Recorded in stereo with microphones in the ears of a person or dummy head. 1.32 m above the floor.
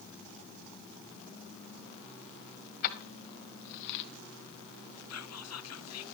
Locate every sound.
2.8 s keys jangling: 55° left (ahead or behind), 2.5 m; by 4.0 s 50° left (ahead or behind), 0.9 m
5.1 s whispering: 75° left (ahead or behind), 1.1 m